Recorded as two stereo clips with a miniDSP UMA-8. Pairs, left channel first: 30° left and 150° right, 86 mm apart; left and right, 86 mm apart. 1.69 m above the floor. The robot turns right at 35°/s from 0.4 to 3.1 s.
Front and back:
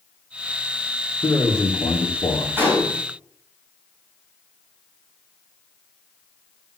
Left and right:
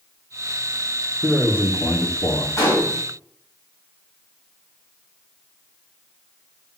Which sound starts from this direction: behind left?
A gunshot, at 2.6 s.